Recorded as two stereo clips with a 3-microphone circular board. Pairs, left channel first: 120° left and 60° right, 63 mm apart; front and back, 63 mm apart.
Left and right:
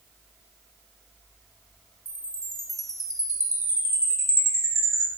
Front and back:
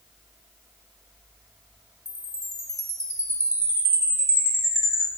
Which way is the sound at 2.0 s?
150° left.